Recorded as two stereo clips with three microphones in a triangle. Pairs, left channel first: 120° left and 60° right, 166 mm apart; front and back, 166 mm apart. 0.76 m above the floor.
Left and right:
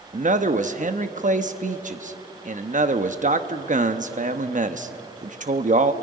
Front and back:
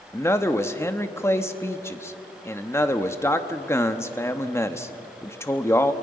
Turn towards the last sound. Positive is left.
turn(degrees=-70)